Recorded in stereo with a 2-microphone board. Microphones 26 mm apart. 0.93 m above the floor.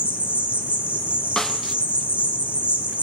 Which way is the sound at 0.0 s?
70° right (ahead or behind).